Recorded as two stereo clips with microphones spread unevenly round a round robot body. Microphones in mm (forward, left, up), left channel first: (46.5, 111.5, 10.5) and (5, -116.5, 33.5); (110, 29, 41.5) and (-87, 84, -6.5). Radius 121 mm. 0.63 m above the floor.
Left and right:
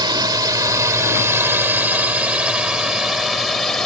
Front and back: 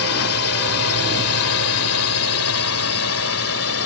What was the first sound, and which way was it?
A drone, 30° right.